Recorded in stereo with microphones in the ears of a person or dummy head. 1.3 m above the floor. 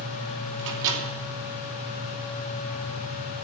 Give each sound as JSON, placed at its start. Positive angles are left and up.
{"t": 0.6, "sound": "a microwave", "side_deg": -65, "distance_m": 3.0}